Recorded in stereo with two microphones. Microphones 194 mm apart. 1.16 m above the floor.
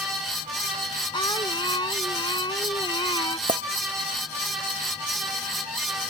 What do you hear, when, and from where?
1.1 s singing: 20° left (ahead or behind)
3.5 s a clink: 25° right (ahead or behind)